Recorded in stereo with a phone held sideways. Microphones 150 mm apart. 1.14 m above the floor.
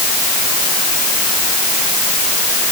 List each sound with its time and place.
Only background noise.